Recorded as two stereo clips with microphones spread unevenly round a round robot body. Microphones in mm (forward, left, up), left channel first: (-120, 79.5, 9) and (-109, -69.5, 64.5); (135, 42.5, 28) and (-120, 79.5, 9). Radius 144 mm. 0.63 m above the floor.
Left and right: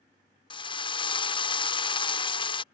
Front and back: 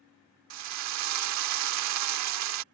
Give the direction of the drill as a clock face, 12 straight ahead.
7 o'clock.